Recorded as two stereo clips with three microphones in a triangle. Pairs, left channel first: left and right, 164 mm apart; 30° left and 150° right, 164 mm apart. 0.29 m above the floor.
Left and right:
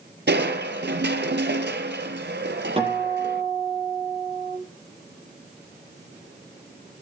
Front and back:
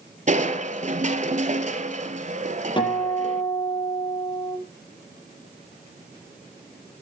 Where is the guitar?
30° right, 7 m.